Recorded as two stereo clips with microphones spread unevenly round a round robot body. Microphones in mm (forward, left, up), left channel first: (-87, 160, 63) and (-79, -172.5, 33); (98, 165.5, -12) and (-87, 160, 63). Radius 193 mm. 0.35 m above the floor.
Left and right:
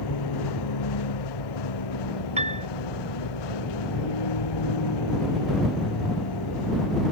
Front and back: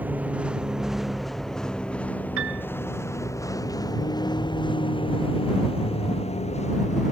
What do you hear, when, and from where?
0.0 s a vehicle: 100° left; by 7.1 s 55° left
2.4 s a piano: 160° right